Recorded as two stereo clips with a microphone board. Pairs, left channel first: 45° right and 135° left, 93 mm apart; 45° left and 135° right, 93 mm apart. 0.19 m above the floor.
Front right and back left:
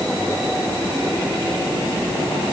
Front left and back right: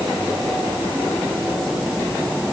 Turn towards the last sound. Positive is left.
No sound to turn to.